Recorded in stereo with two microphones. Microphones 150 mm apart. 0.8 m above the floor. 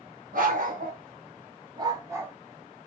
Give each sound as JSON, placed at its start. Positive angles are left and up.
{"t": 0.3, "sound": "a dog barking", "side_deg": -70, "distance_m": 1.9}